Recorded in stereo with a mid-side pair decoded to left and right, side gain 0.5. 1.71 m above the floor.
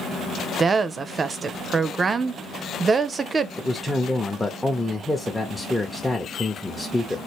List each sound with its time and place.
0.6 s a woman speaking: 35° right, 0.5 m
3.6 s a man speaking: 10° left, 0.7 m